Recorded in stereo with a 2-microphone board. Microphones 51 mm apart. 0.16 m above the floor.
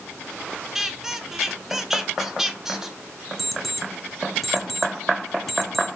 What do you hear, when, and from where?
0.8 s a squeak: 10° right (ahead or behind), 0.6 m
3.4 s an alarm clock: 5° left (ahead or behind), 1.2 m